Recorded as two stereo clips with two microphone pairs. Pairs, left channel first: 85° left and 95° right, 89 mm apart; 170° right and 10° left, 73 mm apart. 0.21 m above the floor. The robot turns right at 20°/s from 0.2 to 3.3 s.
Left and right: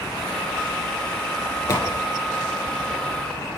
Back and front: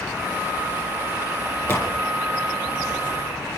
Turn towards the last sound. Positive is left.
turn(degrees=170)